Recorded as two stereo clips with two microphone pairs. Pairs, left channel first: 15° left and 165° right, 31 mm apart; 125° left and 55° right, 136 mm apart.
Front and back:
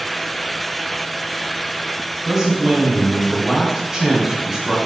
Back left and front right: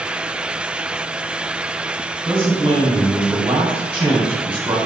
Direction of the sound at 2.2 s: 100° right.